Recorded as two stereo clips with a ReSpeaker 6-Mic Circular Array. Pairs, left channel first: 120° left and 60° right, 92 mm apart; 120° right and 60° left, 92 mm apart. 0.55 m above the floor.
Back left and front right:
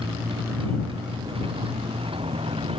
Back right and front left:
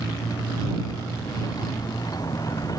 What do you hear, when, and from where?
0.0 s a motorcycle: 75° right; by 2.8 s 70° right